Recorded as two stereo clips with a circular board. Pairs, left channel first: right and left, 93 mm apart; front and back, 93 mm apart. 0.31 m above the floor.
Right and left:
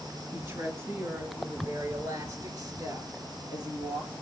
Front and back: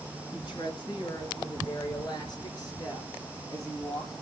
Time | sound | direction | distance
0.3 | a woman speaking | 30° left | 3.5 m